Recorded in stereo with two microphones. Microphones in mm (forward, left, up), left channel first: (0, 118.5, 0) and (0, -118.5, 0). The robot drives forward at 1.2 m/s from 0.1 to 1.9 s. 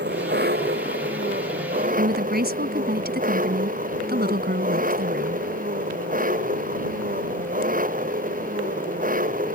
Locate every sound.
0.0 s an engine running: 45° right (ahead or behind); by 9.6 s 35° right (ahead or behind)
2.0 s a woman speaking: 40° right (ahead or behind)